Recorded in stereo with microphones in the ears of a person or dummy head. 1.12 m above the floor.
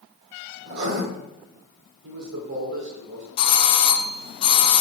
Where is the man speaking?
80° right, 3 m.